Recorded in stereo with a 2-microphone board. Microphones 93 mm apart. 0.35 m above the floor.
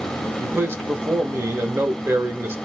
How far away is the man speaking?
About 0.8 m.